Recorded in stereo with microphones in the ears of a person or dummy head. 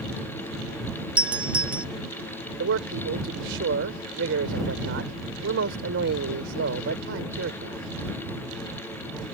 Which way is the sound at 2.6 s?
70° right (ahead or behind).